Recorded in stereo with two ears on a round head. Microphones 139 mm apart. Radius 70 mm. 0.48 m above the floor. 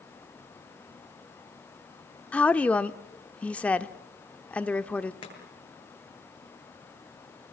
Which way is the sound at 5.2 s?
30° left (ahead or behind).